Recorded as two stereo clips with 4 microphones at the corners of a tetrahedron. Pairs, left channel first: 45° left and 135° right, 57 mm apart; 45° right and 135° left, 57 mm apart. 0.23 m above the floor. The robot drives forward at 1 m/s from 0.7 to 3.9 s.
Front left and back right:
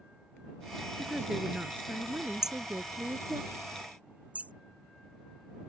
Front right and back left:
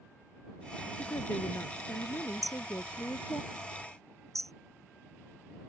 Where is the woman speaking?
55° right; by 3.4 s 90° right.